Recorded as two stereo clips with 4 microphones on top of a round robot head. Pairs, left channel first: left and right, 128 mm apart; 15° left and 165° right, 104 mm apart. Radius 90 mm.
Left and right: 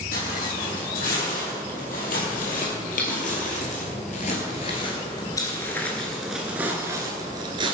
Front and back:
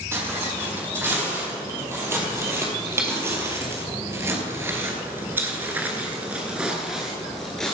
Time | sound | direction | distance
0.1 | footsteps | 125° left | 3.5 m